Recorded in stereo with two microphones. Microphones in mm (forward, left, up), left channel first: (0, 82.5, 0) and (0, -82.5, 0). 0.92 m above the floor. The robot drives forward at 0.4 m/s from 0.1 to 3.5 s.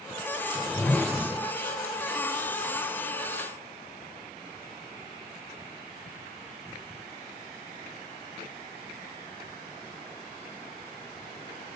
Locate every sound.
0.6 s a whoosh: 5° left (ahead or behind), 0.8 m